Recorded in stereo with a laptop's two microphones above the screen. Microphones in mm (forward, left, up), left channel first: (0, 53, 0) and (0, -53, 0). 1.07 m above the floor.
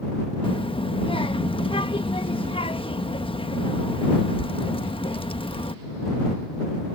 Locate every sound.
0.4 s a child speaking: 60° left (ahead or behind)